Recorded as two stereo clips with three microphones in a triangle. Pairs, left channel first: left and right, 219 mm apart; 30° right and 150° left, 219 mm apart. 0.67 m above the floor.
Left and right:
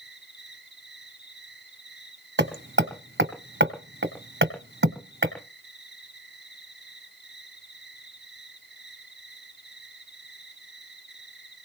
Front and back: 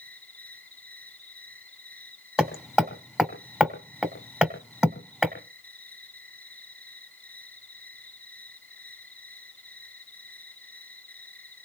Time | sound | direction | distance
0.0 | an insect | 50° left | 5.5 m
2.4 | hammering | 125° right | 2 m